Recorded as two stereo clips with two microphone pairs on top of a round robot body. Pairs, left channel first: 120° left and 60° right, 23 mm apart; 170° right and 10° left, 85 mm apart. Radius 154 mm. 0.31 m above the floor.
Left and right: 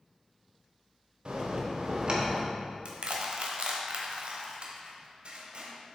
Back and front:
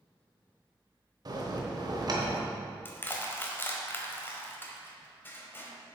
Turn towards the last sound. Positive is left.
turn(degrees=-100)